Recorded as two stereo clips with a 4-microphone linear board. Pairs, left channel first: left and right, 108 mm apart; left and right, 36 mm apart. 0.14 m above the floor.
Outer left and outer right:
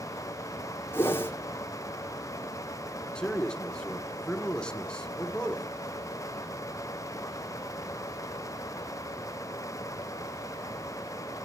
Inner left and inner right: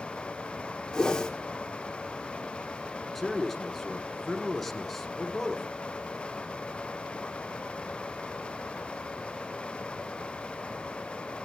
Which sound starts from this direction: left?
A whoosh, at 0.9 s.